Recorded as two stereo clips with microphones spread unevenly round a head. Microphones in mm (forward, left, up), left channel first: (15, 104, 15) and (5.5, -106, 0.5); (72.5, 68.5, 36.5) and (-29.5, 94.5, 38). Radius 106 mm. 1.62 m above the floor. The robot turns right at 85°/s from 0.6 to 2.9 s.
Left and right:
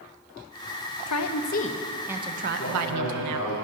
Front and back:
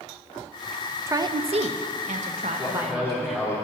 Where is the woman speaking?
100° left, 0.8 m; by 3.6 s 105° right, 0.8 m.